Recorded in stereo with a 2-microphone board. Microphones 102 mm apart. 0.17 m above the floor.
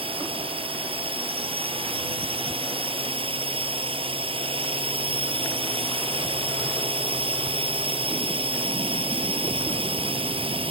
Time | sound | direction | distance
0.0 | a drone | 65° right (ahead or behind) | ?